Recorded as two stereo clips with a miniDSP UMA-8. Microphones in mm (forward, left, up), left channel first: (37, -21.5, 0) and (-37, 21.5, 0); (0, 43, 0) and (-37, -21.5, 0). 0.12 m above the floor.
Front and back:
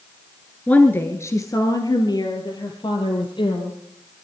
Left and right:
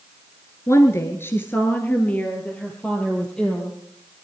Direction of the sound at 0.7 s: 40° left.